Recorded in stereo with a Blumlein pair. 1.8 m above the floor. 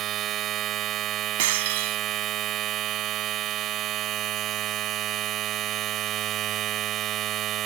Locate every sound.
0.0 s a machine running: 30° right
1.4 s breaking glass: 55° right